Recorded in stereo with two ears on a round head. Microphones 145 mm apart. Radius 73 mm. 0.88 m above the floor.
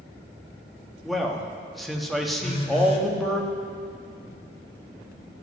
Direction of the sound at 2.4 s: 35° left (ahead or behind).